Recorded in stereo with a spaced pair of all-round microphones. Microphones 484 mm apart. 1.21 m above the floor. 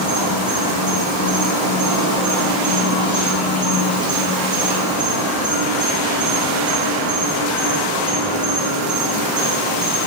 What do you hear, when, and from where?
0.0 s an insect: 15° right (ahead or behind), 0.9 m